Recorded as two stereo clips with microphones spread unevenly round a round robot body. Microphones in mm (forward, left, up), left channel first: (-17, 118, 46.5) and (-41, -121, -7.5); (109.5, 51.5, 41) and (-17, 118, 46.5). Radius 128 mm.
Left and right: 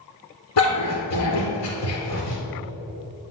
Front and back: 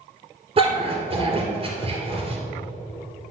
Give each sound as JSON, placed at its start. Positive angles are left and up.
{"t": 0.6, "sound": "a dog barking", "azimuth_deg": 105, "distance_m": 2.5}